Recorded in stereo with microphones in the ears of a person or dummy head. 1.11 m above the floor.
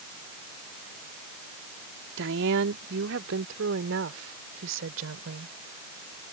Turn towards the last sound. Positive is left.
turn(degrees=-85)